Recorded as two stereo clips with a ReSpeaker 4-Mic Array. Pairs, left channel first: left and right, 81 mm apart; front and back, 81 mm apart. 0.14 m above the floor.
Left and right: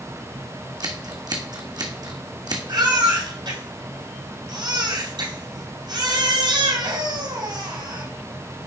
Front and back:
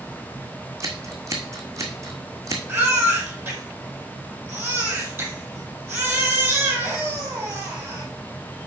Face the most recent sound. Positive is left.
turn(degrees=-110)